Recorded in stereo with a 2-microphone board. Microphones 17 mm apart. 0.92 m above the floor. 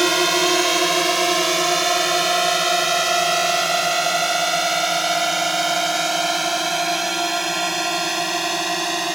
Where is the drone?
Centre (ahead or behind); by 9.1 s 10° right (ahead or behind).